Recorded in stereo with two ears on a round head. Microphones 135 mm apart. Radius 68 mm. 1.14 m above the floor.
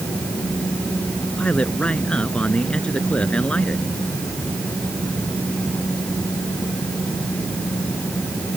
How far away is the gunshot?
No gunshot in this recording.